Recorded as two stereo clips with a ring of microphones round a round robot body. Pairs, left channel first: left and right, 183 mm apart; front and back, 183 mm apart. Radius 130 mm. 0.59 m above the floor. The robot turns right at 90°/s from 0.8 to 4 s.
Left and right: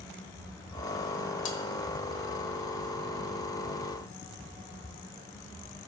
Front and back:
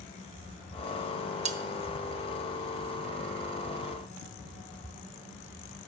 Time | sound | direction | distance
1.4 | cutlery clinking | 125° left | 0.5 m